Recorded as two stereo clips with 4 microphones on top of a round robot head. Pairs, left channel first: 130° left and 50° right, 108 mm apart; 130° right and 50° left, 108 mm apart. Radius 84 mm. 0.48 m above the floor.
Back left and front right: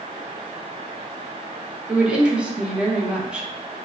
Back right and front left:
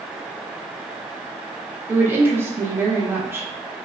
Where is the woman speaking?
20° left, 0.7 m.